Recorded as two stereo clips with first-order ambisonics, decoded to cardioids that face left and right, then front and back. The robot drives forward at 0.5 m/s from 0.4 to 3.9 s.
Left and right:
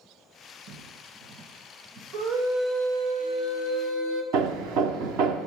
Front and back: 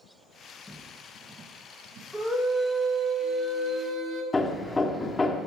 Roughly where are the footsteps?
Right.